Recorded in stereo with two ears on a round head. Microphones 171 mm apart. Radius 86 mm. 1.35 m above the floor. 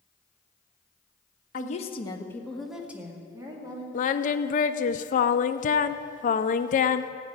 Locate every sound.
1.5 s a woman speaking: 45° left (ahead or behind), 1.2 m; by 3.8 s 25° right (ahead or behind), 2.5 m
3.9 s singing: 45° left (ahead or behind), 0.5 m